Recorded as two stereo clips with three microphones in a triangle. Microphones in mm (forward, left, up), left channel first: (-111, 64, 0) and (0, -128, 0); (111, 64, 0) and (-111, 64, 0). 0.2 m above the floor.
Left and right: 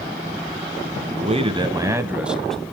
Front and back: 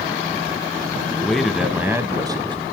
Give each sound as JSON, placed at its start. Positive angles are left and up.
{"t": 1.1, "sound": "a man speaking", "azimuth_deg": -80, "distance_m": 1.3}